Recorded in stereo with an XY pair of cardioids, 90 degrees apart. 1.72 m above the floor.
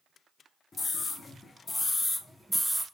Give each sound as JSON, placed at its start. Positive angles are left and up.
{"t": 0.7, "sound": "a scream", "azimuth_deg": 40, "distance_m": 1.4}